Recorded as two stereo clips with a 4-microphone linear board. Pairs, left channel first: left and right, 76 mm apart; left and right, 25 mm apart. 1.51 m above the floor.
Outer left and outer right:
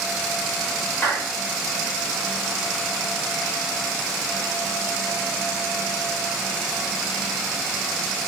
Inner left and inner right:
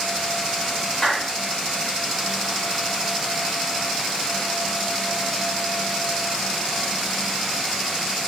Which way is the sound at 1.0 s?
25° left (ahead or behind).